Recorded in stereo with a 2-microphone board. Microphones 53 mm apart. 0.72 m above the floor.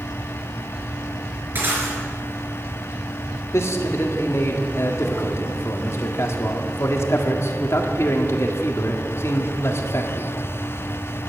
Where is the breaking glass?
40° right (ahead or behind), 4 m.